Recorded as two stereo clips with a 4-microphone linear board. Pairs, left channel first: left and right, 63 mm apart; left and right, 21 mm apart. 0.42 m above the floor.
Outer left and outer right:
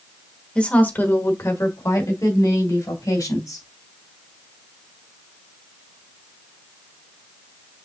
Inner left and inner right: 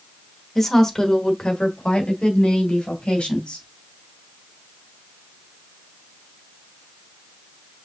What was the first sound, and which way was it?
A woman speaking, 15° left (ahead or behind).